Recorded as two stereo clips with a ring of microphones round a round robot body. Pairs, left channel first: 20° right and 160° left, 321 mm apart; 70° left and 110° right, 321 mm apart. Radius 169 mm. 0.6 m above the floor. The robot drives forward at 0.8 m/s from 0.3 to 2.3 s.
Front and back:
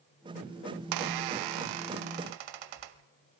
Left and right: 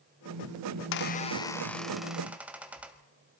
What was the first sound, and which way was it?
A squeak, 110° left.